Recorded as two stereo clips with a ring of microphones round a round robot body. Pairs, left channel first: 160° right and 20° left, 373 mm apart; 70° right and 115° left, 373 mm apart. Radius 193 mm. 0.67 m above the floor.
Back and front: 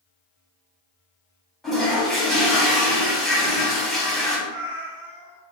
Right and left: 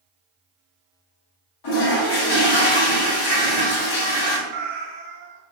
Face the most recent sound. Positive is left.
turn(degrees=100)